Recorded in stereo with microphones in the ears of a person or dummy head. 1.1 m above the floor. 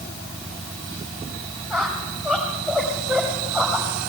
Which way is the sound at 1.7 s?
15° left (ahead or behind).